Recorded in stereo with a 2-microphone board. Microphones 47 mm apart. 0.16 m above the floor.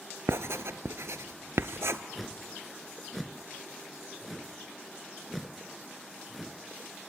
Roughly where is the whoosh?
Centre.